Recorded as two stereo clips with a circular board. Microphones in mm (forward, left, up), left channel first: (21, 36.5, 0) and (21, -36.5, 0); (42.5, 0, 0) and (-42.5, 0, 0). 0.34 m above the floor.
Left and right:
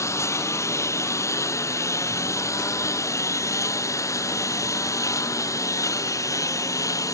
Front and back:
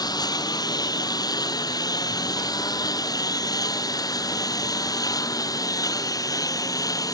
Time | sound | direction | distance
0.0 | a lawn mower | 40° left | ?